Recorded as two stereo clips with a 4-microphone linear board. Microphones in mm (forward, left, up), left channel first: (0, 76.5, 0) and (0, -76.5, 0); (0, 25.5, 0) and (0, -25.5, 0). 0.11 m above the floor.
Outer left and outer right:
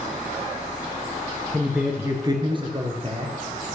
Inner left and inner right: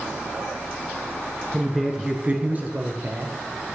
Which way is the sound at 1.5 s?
5° left (ahead or behind).